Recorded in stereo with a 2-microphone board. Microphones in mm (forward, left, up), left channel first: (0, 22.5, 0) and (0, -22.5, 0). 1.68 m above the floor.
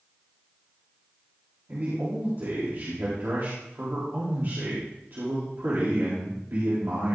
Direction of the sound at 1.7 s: 55° right (ahead or behind).